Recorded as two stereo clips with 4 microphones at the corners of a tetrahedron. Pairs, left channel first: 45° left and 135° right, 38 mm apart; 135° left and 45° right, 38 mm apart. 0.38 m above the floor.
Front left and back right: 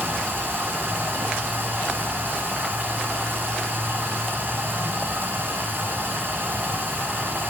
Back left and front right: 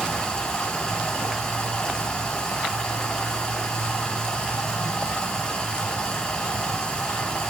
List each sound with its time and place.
0.0 s running water: 155° right, 4 m